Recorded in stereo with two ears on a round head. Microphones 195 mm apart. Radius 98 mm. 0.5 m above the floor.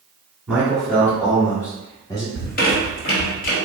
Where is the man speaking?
5° right (ahead or behind), 1.3 m; by 2.2 s 20° left (ahead or behind), 1.7 m.